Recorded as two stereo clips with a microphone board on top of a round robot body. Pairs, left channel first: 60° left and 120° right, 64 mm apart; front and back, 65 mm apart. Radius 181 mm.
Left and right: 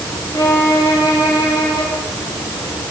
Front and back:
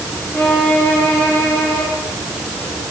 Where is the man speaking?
No man speaking in this recording.